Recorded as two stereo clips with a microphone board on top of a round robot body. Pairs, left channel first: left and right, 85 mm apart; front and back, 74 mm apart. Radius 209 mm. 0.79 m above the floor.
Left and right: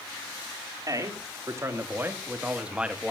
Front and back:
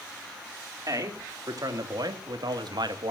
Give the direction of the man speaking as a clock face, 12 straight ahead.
5 o'clock.